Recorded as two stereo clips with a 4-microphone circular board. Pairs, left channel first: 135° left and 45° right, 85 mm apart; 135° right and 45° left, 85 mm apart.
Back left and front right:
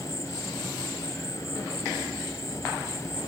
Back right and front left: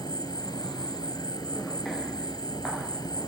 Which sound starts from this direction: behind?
An insect, at 0.0 s.